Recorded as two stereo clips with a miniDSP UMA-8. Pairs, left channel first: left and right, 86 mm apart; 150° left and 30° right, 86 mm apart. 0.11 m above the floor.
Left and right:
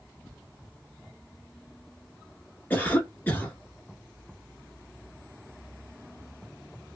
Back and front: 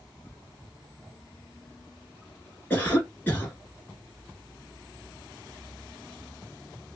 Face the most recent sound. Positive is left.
turn(degrees=120)